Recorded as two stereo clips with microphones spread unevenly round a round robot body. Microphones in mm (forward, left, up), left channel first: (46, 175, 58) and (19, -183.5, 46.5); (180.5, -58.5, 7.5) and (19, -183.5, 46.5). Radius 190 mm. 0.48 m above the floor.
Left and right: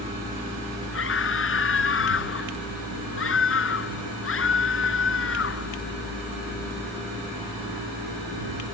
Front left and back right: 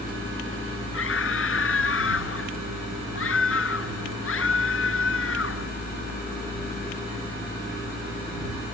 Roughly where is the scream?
Ahead left.